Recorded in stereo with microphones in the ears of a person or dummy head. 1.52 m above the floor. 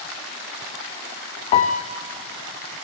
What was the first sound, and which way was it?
A piano, 25° left (ahead or behind).